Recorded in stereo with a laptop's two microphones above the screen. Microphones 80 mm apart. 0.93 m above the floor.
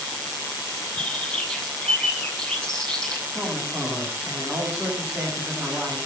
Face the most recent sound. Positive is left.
turn(degrees=-25)  # may be behind; listen again after turning